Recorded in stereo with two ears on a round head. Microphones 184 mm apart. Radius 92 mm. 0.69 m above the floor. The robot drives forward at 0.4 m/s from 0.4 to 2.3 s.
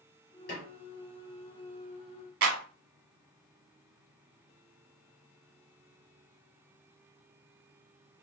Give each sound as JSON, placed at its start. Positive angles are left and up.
{"t": 0.5, "sound": "a snare drum", "side_deg": 55, "distance_m": 2.0}
{"t": 2.4, "sound": "a clap", "side_deg": -55, "distance_m": 1.0}